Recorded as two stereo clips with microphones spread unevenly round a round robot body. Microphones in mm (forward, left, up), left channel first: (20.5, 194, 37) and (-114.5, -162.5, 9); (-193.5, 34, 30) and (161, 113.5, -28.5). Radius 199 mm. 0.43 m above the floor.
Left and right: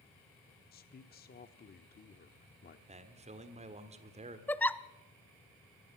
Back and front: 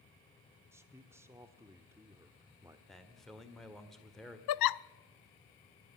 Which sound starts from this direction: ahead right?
A man speaking, at 2.9 s.